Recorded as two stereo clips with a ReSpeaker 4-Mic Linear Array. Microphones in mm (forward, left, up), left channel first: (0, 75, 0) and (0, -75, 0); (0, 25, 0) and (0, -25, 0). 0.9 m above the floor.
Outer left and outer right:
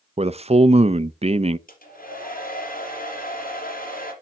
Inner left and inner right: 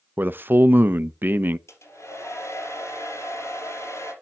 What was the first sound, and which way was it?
A man speaking, 45° right (ahead or behind).